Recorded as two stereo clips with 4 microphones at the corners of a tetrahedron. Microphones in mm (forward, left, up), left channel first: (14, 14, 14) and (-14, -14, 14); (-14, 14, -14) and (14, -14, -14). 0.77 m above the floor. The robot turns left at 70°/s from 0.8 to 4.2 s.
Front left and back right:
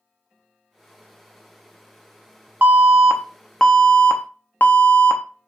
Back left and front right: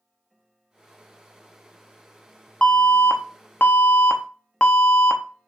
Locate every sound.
2.6 s an alarm: 170° right, 0.5 m; by 5.5 s 80° left, 0.5 m